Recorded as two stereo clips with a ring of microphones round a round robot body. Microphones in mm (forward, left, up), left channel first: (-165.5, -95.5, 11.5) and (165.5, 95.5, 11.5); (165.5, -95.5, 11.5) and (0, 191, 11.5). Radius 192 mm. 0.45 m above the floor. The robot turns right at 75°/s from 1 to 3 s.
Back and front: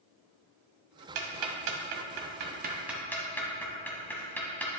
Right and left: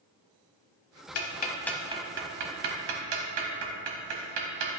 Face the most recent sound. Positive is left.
turn(degrees=125)